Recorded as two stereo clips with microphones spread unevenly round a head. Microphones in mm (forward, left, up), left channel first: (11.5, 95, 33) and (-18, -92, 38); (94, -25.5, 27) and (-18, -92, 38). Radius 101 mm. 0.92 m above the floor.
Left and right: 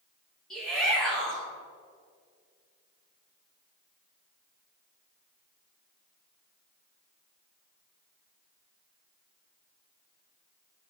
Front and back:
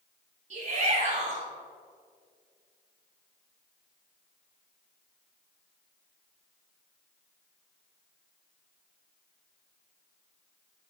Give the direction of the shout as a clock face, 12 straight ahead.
6 o'clock.